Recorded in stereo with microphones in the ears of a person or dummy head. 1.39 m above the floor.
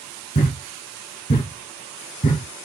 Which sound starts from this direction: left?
A thud, at 0.3 s.